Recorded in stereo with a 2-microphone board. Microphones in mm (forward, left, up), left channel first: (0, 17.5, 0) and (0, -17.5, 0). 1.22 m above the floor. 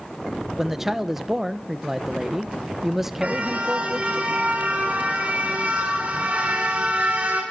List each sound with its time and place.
0.6 s a man speaking: 10° right (ahead or behind), 1.1 m
3.2 s a car horn: 40° right (ahead or behind), 5.5 m